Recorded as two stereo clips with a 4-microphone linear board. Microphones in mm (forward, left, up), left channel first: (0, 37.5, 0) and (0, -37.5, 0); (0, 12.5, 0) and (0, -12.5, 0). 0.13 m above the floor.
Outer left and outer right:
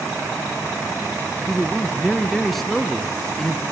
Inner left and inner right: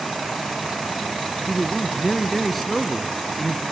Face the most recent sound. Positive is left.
turn(degrees=0)  # may be behind; listen again after turning